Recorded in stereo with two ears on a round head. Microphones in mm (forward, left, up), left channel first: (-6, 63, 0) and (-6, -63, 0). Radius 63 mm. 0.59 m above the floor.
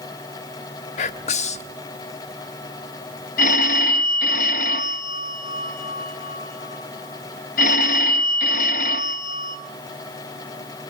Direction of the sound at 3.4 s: 65° left (ahead or behind).